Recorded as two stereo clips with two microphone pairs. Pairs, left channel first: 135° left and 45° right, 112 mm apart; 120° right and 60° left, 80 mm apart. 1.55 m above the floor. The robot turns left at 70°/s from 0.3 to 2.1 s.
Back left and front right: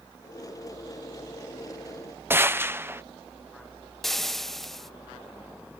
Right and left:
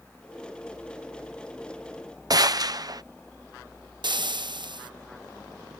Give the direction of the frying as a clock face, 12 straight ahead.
10 o'clock.